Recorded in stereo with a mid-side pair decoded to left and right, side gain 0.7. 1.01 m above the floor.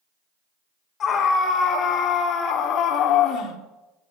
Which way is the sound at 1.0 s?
40° left.